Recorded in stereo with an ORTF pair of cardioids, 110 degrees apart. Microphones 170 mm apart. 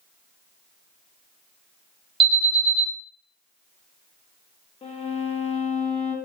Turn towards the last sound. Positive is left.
turn(degrees=35)